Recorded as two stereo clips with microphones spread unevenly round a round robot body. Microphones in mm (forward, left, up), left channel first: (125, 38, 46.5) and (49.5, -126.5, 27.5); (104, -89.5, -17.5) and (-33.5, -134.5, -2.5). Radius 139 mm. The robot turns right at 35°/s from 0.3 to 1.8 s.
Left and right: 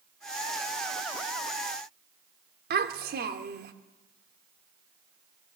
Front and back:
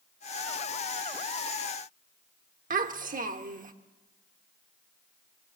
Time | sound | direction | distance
2.7 | a child speaking | 140° right | 1.5 m